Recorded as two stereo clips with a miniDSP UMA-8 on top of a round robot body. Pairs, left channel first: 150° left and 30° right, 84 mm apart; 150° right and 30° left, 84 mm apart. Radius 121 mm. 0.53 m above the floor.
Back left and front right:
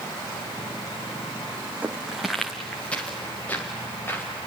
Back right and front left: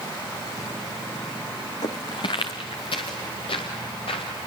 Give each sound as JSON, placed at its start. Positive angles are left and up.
{"t": 1.8, "sound": "footsteps", "azimuth_deg": -105, "distance_m": 1.7}